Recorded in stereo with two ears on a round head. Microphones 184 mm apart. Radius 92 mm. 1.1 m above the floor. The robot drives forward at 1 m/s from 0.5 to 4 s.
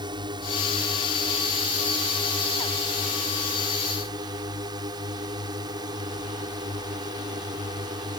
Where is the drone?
20° right (ahead or behind).